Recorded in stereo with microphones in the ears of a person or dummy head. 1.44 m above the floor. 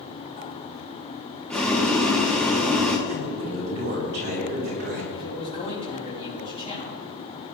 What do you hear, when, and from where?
1.5 s boiling: 5° left (ahead or behind), 1.8 m
3.1 s a man speaking: 50° right (ahead or behind), 5 m
5.1 s a man speaking: 35° left (ahead or behind), 4.5 m